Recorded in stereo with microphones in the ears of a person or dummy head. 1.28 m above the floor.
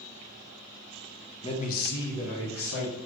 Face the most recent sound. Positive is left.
turn(degrees=85)